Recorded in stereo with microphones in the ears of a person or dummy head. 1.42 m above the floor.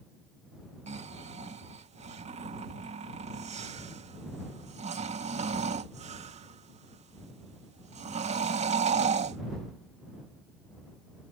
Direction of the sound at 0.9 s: 40° right (ahead or behind).